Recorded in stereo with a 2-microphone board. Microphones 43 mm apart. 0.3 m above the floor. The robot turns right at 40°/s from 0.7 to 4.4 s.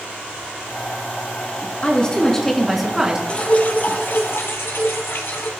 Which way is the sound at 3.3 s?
25° left.